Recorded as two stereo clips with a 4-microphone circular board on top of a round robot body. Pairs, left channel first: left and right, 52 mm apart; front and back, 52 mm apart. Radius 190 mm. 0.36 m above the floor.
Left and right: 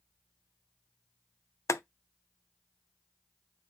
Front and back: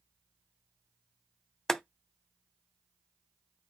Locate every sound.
1.7 s boiling: 80° left, 0.6 m